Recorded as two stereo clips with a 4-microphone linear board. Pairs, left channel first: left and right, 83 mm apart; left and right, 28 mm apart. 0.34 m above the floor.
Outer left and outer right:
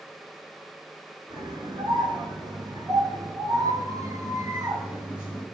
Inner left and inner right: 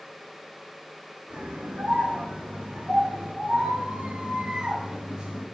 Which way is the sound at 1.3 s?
75° right (ahead or behind).